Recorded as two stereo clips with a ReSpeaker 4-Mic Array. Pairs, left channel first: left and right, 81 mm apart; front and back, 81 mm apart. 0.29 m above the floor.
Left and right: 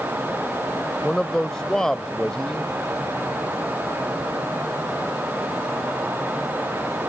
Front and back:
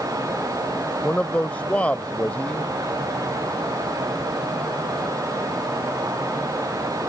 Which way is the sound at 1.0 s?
25° left.